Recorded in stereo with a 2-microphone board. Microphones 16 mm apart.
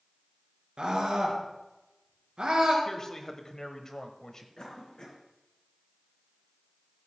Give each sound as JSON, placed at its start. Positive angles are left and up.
{"t": 0.8, "sound": "a scream", "side_deg": -70, "distance_m": 3.5}
{"t": 2.9, "sound": "a man speaking", "side_deg": 35, "distance_m": 1.0}
{"t": 4.6, "sound": "a cough", "side_deg": 45, "distance_m": 3.5}